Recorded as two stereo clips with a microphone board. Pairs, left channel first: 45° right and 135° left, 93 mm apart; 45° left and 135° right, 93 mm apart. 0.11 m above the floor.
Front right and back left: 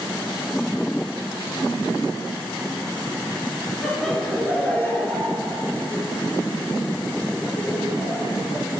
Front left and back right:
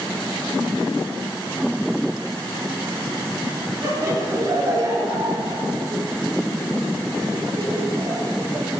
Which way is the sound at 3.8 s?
135° right.